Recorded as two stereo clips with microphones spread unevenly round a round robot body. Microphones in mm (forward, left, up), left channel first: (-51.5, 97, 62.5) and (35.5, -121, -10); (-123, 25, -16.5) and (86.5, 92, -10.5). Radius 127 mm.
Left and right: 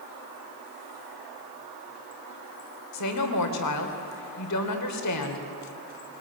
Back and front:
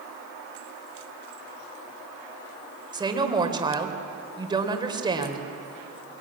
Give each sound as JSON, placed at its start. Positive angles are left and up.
{"t": 2.9, "sound": "a woman speaking", "azimuth_deg": 90, "distance_m": 3.0}